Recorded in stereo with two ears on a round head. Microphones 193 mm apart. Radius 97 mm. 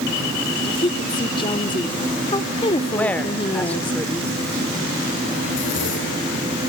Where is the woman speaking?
25° left (ahead or behind), 1.2 m.